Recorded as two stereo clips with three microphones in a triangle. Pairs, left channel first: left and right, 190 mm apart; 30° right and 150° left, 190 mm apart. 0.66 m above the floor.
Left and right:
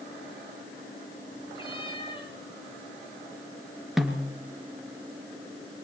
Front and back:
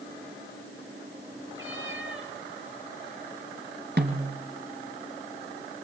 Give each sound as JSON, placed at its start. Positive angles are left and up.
{"t": 1.6, "sound": "a cat meowing", "azimuth_deg": 155, "distance_m": 6.0}
{"t": 4.0, "sound": "a snare drum", "azimuth_deg": 180, "distance_m": 3.5}